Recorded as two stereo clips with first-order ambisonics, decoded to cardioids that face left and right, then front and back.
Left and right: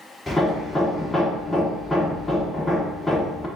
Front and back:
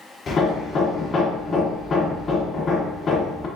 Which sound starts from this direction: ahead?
Hammering, at 0.3 s.